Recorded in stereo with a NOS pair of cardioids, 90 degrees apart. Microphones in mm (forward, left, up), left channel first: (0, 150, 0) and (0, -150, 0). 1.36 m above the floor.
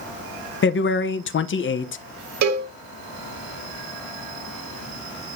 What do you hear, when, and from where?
0.6 s a man speaking: 40° left, 0.8 m
2.4 s a cowbell: 70° right, 1.7 m